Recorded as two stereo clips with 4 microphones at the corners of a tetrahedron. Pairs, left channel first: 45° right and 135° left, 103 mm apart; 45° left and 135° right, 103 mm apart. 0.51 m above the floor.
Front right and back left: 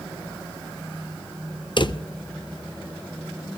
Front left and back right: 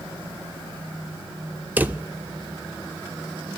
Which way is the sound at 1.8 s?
65° right.